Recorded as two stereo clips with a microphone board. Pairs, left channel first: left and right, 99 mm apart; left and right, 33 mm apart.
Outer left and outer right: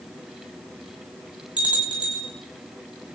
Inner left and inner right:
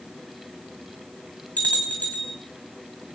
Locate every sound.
1.6 s a bell: 55° left (ahead or behind), 3.5 m